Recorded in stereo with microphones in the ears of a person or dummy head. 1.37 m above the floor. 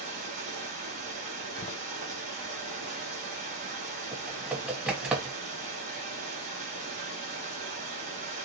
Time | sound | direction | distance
0.0 | running water | 45° right (ahead or behind) | 3 m
1.6 | a door slam | 40° left (ahead or behind) | 0.5 m
4.1 | typing on a keyboard | 10° right (ahead or behind) | 1.3 m